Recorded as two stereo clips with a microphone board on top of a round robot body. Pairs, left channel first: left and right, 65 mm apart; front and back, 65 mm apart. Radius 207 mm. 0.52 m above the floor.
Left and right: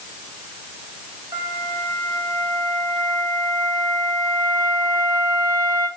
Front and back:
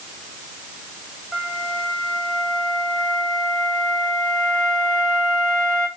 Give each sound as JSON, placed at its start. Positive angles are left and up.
{"t": 1.3, "sound": "a flute", "azimuth_deg": -85, "distance_m": 4.0}